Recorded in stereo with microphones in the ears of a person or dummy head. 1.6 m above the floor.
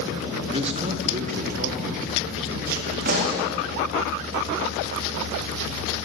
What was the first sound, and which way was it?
A man speaking, 30° right (ahead or behind).